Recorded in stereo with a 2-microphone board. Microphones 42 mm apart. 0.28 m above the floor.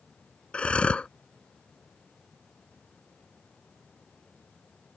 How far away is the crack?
I don't hear a crack.